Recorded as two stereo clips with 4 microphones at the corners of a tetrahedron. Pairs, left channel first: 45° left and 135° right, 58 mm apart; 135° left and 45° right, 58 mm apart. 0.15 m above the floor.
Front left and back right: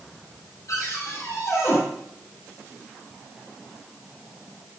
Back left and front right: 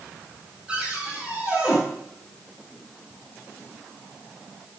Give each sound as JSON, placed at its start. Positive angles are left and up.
{"t": 0.7, "sound": "a cupboard door", "azimuth_deg": 25, "distance_m": 5.5}